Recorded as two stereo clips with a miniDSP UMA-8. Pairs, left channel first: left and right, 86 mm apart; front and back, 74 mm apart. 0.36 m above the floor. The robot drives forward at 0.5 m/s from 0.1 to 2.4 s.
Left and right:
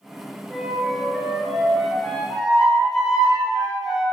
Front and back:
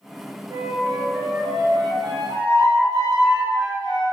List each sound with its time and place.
0.5 s a flute: straight behind, 1.1 m